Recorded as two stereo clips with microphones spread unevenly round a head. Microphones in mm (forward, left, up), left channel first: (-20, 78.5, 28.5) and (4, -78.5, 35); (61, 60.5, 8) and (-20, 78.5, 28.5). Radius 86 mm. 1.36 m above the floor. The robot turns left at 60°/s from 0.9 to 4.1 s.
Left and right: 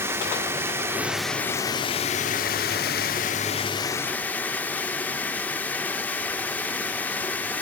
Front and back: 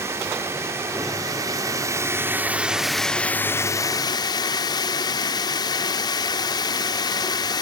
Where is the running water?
150° right, 1.2 m; by 7.6 s 20° left, 1.2 m.